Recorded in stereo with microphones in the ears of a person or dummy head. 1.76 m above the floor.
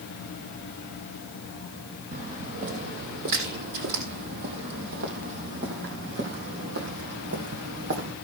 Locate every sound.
2.1 s footsteps: 45° right (ahead or behind), 3.5 m; by 8.2 s 65° right (ahead or behind), 4.5 m